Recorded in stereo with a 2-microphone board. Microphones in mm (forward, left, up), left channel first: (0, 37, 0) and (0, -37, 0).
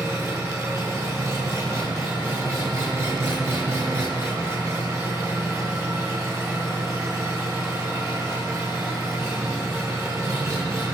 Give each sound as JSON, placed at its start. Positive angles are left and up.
{"t": 0.0, "sound": "an engine running", "side_deg": -35, "distance_m": 2.5}